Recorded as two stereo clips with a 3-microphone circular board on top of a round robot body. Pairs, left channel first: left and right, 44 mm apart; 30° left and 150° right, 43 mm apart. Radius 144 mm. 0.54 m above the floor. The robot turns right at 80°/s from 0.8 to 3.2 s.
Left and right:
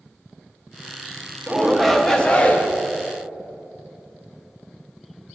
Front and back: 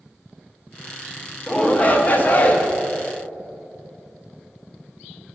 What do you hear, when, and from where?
1.5 s a shout: 25° right, 0.7 m; by 2.7 s 70° left, 0.7 m